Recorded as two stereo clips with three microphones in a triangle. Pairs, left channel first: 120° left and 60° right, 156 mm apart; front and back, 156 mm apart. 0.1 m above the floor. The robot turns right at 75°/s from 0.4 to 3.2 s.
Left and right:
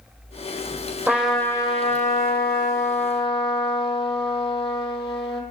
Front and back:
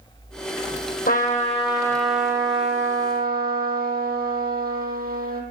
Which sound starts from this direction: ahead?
A trumpet, at 1.1 s.